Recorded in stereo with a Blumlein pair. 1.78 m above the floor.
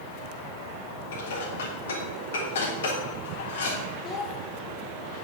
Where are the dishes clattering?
60° left, 3.5 m.